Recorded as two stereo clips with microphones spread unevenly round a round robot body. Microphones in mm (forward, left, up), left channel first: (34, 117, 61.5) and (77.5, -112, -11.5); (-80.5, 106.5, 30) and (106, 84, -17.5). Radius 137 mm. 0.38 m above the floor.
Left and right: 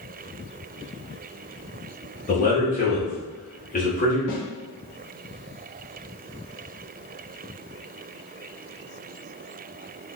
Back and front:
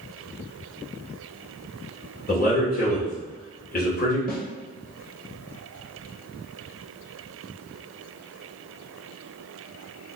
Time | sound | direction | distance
2.3 | a man speaking | 160° left | 1.1 m
4.3 | a snare drum | 130° left | 0.9 m